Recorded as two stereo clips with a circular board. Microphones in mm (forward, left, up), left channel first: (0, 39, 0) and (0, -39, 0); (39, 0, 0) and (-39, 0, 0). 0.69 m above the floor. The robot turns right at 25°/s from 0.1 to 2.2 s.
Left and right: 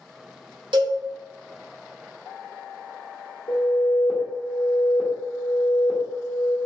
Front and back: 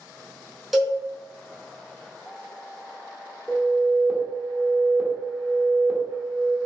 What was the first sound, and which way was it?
A cowbell, 90° right.